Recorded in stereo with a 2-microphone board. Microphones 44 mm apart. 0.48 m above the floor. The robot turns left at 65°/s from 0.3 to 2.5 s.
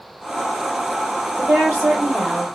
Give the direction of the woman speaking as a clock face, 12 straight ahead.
3 o'clock.